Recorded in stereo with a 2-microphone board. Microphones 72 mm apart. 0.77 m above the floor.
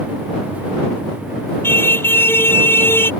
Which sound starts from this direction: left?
A car horn, at 1.6 s.